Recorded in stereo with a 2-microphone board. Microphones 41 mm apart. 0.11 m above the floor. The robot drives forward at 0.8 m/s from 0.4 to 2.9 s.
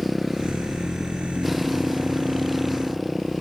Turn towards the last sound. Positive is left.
turn(degrees=-5)  # may be behind; listen again after turning